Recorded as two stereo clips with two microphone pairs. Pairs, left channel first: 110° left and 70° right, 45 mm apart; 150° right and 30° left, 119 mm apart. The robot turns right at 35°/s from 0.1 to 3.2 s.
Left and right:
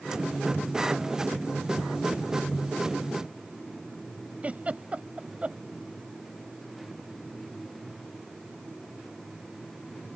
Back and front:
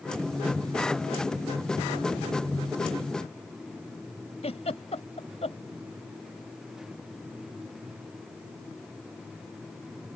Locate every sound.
4.4 s a giggle: 125° right